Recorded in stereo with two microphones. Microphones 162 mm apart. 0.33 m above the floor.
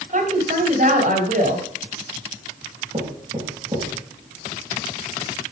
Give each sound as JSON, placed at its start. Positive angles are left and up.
{"t": 0.1, "sound": "a woman speaking", "side_deg": -60, "distance_m": 2.0}
{"t": 2.9, "sound": "knocking", "side_deg": -35, "distance_m": 6.0}